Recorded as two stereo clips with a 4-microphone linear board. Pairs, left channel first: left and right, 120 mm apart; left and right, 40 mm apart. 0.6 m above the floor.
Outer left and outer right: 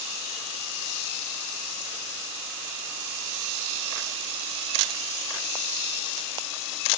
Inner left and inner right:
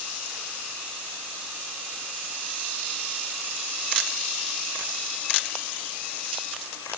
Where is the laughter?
I don't hear laughter.